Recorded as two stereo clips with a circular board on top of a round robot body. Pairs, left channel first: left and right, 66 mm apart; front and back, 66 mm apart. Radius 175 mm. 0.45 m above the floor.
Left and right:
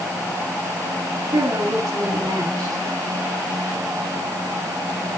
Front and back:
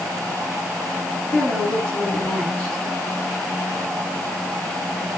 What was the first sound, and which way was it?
A woman speaking, 75° right.